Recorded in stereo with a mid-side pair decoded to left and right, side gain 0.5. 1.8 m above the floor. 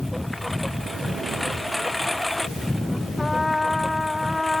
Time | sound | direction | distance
0.0 | a lawn mower | 10° left | ?
3.2 | a trumpet | 20° left | ?